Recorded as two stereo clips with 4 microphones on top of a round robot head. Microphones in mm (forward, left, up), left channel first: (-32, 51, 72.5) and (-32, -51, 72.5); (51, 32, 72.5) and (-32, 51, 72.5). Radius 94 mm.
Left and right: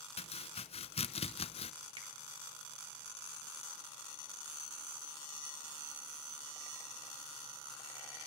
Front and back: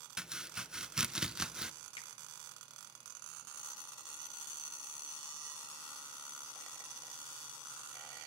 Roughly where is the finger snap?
Ahead right.